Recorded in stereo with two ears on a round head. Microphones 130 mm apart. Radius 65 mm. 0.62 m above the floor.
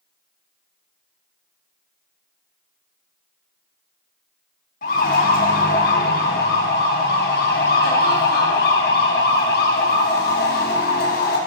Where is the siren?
65° left (ahead or behind), 5.5 m; by 11.4 s 75° left (ahead or behind), 5.5 m.